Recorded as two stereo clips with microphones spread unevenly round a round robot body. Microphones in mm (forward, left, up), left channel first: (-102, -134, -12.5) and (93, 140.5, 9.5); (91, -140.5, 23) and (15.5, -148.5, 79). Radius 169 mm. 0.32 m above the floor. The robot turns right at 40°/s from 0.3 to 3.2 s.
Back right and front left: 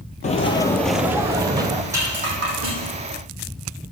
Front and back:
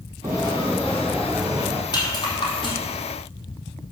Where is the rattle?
25° right, 4 m; by 2.8 s 5° left, 4 m.